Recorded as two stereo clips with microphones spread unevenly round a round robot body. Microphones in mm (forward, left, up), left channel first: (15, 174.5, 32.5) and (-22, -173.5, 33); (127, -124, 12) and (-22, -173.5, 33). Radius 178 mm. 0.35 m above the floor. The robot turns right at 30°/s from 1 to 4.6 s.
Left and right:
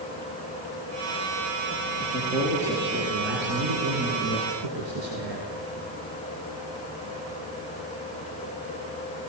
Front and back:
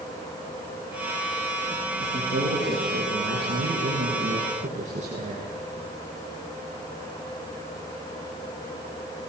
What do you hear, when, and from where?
2.0 s a man speaking: 165° left, 6 m; by 5.5 s 120° right, 6 m